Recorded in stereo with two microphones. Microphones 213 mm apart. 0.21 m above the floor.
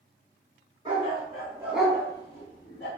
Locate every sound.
0.8 s a dog barking: 25° right (ahead or behind), 1.3 m; by 2.9 s 55° left (ahead or behind), 0.7 m